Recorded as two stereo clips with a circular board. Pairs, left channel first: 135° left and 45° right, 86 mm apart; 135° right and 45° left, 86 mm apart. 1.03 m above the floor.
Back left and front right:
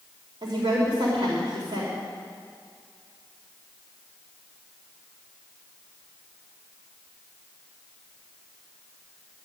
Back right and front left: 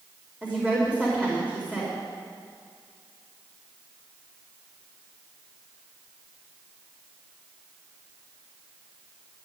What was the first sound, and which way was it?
A woman speaking, 60° right.